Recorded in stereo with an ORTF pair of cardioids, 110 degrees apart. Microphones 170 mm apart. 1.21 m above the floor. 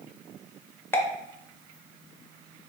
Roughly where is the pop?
Ahead.